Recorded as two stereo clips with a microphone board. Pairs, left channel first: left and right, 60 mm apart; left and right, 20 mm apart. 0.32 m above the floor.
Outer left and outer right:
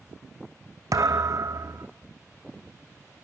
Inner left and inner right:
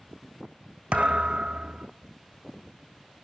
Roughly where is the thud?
Right.